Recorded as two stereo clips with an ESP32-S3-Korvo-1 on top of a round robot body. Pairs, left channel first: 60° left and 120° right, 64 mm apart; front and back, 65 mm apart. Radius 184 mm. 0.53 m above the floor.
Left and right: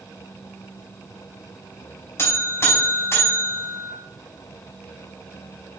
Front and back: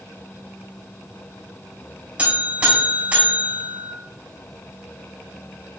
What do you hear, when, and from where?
2.2 s a buzzer: 110° left, 5.5 m